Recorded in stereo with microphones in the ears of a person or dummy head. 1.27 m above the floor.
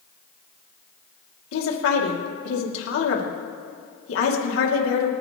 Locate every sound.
1.5 s a woman speaking: 90° left, 2.5 m